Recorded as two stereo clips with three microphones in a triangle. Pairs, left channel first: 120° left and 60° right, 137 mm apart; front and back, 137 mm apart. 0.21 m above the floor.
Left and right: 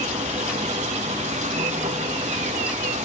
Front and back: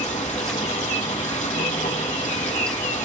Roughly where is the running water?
Ahead right.